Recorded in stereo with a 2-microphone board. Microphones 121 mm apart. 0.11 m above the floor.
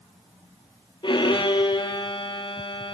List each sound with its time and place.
1.0 s a violin: 40° left (ahead or behind), 2.5 m